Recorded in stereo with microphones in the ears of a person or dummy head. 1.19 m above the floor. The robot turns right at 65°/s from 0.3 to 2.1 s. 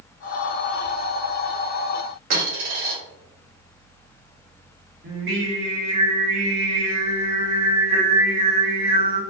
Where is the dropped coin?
55° right (ahead or behind), 1.5 m.